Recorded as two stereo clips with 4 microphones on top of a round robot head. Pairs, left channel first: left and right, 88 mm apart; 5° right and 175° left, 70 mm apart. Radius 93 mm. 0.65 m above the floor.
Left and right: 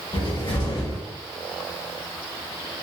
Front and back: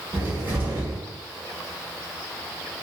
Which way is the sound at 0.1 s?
110° left.